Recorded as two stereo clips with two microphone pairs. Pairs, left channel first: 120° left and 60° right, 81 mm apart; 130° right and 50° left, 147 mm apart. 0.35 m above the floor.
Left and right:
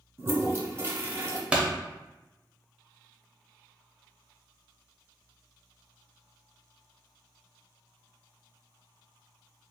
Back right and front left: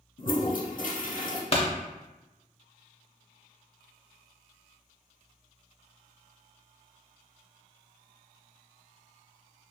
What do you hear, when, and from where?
0.2 s a toilet flushing: 115° right, 0.6 m
1.5 s a pop: 125° right, 0.6 m